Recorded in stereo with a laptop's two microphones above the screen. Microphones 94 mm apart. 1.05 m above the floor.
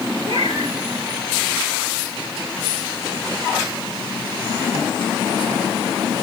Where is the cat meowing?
70° right (ahead or behind), 9 m.